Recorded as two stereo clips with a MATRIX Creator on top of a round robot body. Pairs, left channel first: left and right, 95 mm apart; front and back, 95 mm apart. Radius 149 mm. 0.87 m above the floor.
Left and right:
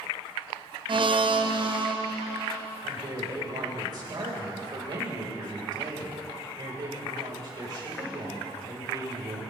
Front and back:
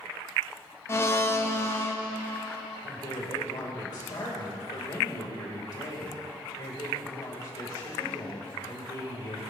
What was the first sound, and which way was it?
A blender, 60° right.